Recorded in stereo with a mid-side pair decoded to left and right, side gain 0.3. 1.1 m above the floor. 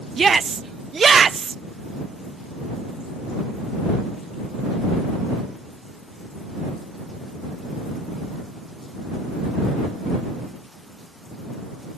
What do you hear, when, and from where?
0.2 s a shout: 55° right